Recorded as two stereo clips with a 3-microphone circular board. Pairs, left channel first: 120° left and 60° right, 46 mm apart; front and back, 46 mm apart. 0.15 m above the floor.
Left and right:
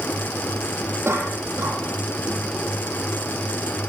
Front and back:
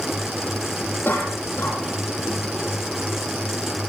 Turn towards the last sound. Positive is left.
turn(degrees=-35)